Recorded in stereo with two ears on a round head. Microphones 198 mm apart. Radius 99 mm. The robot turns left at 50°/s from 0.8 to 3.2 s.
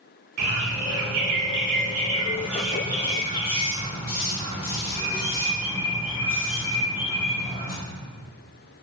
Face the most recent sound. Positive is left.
turn(degrees=155)